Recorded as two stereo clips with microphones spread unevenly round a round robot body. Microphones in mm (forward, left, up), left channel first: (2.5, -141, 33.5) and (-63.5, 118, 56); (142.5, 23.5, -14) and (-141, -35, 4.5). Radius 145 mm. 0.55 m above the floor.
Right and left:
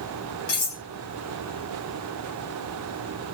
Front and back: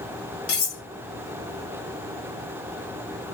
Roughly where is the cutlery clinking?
Ahead.